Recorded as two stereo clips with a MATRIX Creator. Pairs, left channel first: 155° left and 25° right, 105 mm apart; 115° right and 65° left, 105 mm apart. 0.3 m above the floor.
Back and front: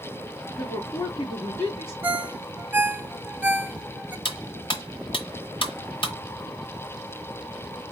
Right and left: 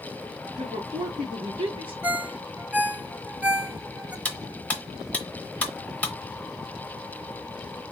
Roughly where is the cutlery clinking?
Behind.